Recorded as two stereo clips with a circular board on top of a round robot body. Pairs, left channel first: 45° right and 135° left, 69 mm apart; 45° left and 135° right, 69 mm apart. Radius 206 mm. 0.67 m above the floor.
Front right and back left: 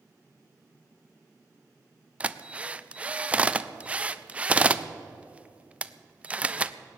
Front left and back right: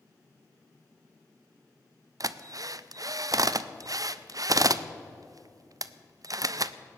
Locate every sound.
2.2 s a drill: 155° right, 0.6 m